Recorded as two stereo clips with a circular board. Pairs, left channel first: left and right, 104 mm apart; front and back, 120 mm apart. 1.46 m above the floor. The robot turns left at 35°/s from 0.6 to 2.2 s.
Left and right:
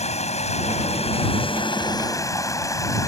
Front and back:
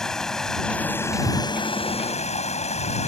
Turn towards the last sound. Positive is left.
turn(degrees=30)